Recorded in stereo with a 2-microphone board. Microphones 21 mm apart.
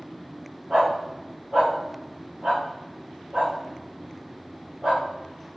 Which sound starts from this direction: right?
A dog barking, at 0.7 s.